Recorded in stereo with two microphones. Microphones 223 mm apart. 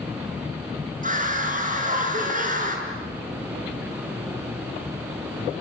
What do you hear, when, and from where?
1.0 s a scream: 35° right (ahead or behind), 7 m